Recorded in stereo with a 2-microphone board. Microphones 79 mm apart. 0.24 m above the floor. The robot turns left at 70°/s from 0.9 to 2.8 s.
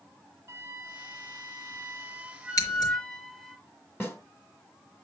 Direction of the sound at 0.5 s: 60° right.